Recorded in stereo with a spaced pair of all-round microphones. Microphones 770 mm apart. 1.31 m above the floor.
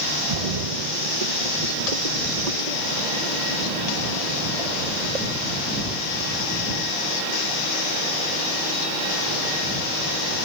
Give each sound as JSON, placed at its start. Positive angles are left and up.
{"t": 0.3, "sound": "a splash", "side_deg": -55}